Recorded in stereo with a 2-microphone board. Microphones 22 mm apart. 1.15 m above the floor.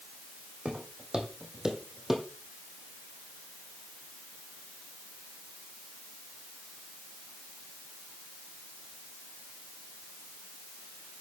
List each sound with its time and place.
0.7 s footsteps: 50° right (ahead or behind), 3.5 m; by 2.3 s 10° right (ahead or behind), 2.5 m